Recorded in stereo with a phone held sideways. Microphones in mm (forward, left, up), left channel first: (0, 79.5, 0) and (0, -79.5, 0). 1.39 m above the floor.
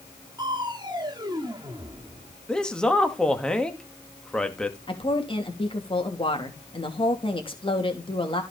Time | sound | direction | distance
0.4 | crushing | 25° right (ahead or behind) | 1.8 m
2.5 | a man speaking | 5° left (ahead or behind) | 2.0 m
4.9 | a woman speaking | 35° left (ahead or behind) | 3 m